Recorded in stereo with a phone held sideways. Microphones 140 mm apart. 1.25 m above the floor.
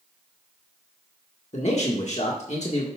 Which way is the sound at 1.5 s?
55° left (ahead or behind).